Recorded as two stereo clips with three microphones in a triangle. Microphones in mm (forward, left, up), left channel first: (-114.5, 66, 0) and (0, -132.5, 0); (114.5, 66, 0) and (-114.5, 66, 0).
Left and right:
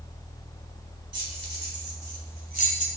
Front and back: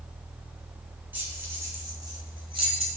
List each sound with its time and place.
1.1 s keys jangling: 100° right, 2.5 m; by 2.9 s 120° right, 2 m